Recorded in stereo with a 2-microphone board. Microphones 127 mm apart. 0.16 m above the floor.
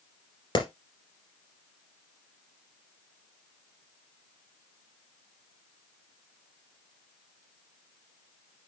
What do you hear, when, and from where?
0.6 s a clap: 40° left (ahead or behind), 2.5 m